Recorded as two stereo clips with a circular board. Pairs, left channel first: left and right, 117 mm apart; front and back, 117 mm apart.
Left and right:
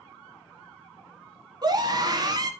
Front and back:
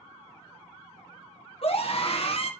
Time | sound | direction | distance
1.6 | a scream | 35° right | 1.8 m